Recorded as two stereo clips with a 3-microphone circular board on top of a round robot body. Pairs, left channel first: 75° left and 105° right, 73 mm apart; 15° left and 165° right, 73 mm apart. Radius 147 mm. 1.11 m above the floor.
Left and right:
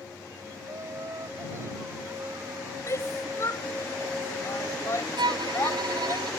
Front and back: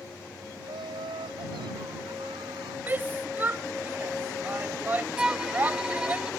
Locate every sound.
0.6 s laughter: 160° right
2.9 s a shout: 130° left
5.2 s a violin: 85° right